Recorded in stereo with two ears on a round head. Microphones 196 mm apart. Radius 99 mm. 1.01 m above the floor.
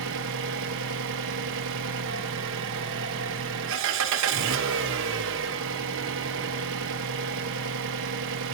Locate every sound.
0.0 s an engine running: 60° right (ahead or behind), 0.9 m